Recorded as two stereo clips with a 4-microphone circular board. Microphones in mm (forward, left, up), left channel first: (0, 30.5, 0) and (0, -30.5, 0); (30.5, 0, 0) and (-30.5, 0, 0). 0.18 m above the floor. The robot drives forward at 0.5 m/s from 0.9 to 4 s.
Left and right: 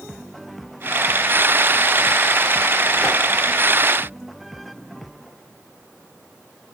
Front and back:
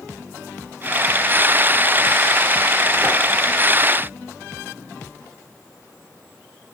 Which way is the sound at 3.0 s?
170° left.